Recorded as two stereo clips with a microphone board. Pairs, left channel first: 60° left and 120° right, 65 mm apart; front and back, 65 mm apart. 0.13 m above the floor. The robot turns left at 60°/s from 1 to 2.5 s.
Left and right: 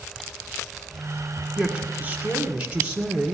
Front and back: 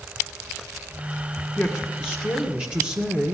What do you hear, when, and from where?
1.6 s a man speaking: 90° right, 1.7 m; by 3.3 s 150° right, 1.7 m